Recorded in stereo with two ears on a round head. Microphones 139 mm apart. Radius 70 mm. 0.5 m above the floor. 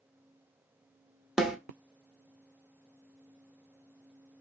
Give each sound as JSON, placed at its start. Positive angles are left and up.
{"t": 1.4, "sound": "a snare drum", "side_deg": -5, "distance_m": 0.7}